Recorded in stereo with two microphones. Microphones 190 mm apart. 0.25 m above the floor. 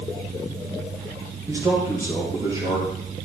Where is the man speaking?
15° right (ahead or behind), 7 m; by 3.3 s 20° right (ahead or behind), 6 m.